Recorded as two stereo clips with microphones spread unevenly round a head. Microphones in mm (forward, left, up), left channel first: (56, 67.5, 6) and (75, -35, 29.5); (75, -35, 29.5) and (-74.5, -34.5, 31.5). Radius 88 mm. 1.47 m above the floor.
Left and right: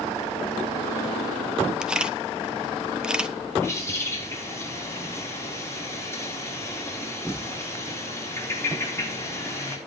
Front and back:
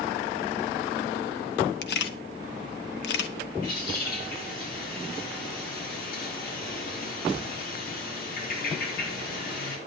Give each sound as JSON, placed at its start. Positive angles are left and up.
{"t": 1.8, "sound": "a camera shutter", "azimuth_deg": 5, "distance_m": 1.3}
{"t": 3.6, "sound": "a bird", "azimuth_deg": 35, "distance_m": 5.0}